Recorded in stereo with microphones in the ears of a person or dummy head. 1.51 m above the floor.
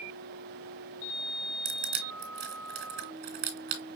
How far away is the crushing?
About 1.6 m.